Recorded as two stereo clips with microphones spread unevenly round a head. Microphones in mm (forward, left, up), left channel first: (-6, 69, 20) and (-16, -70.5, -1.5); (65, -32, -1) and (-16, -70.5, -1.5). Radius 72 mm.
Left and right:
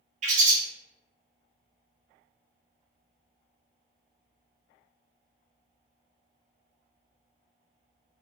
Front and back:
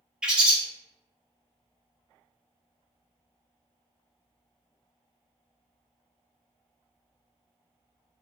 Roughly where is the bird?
Right.